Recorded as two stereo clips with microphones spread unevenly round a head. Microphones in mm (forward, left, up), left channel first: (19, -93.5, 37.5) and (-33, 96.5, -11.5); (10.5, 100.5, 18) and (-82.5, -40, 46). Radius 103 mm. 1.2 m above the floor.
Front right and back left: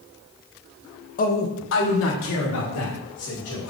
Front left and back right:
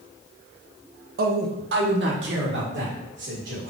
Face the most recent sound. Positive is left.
turn(degrees=-90)